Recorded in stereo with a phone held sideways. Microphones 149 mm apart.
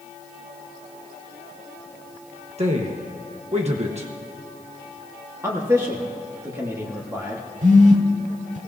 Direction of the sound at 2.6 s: 45° right (ahead or behind).